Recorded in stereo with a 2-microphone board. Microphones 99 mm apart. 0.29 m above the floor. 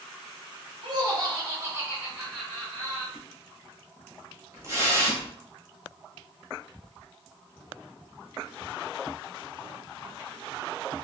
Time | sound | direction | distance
0.8 | laughter | 45° right (ahead or behind) | 1.9 m
3.1 | a splash | 30° right (ahead or behind) | 1.0 m